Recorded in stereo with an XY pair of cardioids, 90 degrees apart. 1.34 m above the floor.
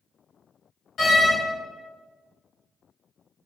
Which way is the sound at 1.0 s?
60° left.